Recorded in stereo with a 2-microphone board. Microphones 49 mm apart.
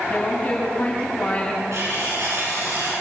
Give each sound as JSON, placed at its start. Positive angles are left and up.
{"t": 0.1, "sound": "a woman speaking", "side_deg": 20, "distance_m": 8.0}
{"t": 1.7, "sound": "cutlery clinking", "side_deg": -85, "distance_m": 9.5}